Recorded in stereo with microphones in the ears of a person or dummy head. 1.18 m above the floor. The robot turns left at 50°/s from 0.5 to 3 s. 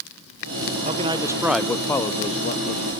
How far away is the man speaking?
About 0.6 m.